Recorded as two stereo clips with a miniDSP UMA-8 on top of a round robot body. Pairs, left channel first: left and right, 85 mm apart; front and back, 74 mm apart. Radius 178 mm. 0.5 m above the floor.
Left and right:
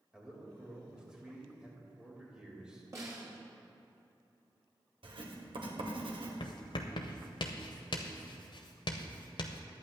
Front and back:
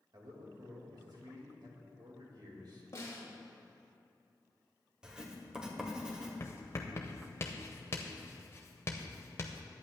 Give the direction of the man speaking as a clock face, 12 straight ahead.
6 o'clock.